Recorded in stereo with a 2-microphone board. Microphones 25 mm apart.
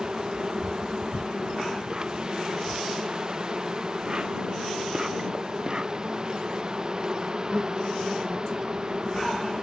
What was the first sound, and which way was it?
An insect, 30° right (ahead or behind).